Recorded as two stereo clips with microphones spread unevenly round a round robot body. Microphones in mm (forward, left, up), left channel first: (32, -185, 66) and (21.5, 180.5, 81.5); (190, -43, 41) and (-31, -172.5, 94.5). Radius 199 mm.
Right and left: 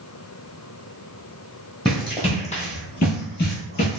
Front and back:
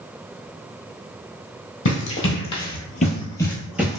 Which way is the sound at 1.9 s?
10° right.